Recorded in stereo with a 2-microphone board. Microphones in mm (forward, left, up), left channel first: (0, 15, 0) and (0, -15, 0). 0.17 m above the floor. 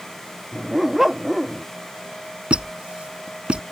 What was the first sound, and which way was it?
A dog barking, 10° right (ahead or behind).